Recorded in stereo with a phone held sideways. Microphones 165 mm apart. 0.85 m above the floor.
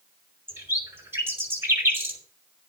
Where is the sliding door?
I don't hear a sliding door.